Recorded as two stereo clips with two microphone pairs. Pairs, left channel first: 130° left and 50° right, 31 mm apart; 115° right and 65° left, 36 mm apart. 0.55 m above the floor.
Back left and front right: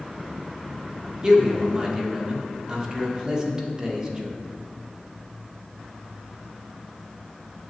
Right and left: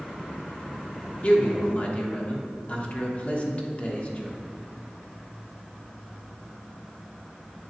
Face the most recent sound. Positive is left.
turn(degrees=-105)